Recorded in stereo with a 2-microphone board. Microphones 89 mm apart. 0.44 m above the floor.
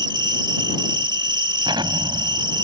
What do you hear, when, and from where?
0.0 s an insect: 60° right (ahead or behind)
1.6 s an explosion: 70° right (ahead or behind)